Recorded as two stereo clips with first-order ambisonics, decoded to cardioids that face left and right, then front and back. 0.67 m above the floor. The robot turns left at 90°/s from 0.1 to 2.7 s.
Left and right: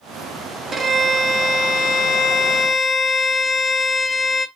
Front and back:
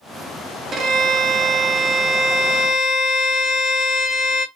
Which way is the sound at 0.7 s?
145° right.